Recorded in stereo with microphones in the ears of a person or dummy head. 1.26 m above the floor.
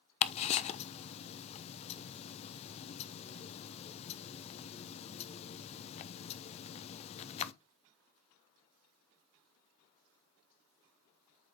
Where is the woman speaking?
I don't hear a woman speaking.